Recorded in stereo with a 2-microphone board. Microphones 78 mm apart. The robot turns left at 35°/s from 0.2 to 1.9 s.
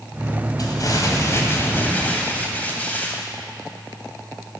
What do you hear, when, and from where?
0.6 s crumpling: 70° left, 2.5 m; by 3.2 s 25° left, 2.5 m